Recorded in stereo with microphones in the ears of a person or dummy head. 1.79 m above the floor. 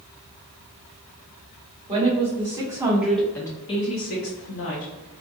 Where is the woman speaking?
30° right (ahead or behind), 1.2 m; by 4.9 s 75° left (ahead or behind), 0.8 m.